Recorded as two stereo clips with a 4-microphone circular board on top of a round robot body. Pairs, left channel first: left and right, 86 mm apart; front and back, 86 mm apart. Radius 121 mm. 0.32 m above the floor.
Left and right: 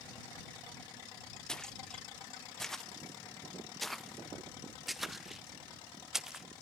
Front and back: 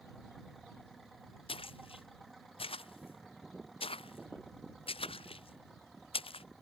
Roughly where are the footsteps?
Ahead.